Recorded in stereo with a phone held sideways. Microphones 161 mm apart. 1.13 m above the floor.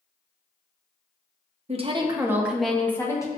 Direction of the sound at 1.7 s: 40° right (ahead or behind).